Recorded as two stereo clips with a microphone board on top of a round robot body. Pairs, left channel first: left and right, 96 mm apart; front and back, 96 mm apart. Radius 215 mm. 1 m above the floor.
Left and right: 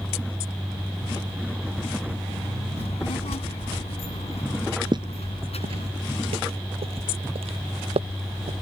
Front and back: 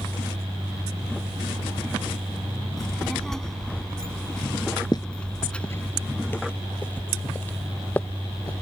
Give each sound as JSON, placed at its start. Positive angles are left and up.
{"t": 2.8, "sound": "a child speaking", "azimuth_deg": 85}
{"t": 4.9, "sound": "footsteps", "azimuth_deg": -50}